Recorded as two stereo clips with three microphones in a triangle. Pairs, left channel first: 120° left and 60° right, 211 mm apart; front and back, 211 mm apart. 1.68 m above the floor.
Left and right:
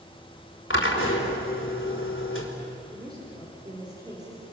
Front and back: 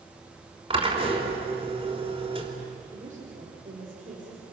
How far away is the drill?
About 3.5 m.